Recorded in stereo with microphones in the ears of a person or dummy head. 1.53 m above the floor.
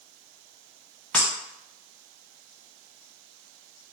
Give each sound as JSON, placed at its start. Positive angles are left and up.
{"t": 1.1, "sound": "breaking glass", "side_deg": 10, "distance_m": 0.8}